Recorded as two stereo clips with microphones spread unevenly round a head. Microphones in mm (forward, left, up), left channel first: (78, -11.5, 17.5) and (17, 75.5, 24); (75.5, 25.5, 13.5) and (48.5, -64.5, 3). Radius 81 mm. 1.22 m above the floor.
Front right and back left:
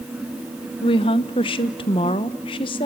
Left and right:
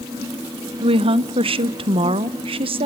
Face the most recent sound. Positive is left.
turn(degrees=-100)